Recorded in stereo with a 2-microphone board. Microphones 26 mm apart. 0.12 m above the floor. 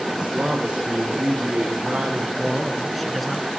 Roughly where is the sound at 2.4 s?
Centre.